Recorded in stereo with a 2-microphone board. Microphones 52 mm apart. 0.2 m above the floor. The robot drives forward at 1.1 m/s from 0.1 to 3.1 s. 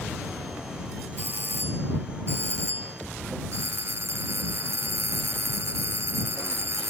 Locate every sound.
1.2 s a doorbell: 40° right (ahead or behind); by 6.9 s 55° right (ahead or behind)